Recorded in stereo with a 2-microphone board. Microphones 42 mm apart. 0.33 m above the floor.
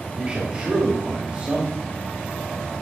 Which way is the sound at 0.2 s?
25° right (ahead or behind).